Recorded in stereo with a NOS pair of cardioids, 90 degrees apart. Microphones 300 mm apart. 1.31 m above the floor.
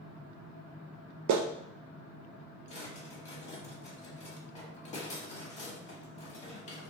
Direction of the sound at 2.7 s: 20° left.